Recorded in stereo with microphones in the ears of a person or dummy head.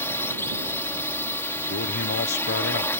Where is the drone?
15° left (ahead or behind).